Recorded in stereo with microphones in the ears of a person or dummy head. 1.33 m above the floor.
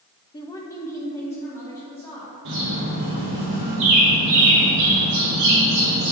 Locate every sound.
0.3 s a woman speaking: 20° left (ahead or behind), 0.5 m; by 2.3 s 10° left (ahead or behind), 2 m
2.5 s a bird: 70° right (ahead or behind), 2 m